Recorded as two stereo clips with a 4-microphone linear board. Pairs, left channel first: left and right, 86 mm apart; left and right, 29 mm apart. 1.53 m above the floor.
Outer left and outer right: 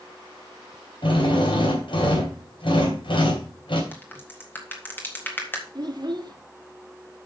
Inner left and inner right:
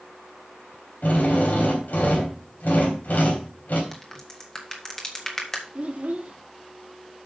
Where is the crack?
25° left (ahead or behind), 1.9 m.